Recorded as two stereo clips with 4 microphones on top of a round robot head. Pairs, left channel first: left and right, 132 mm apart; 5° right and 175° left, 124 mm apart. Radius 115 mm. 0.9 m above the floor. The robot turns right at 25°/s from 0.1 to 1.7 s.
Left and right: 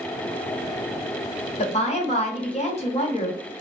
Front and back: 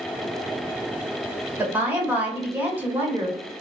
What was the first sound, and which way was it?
A woman speaking, 100° left.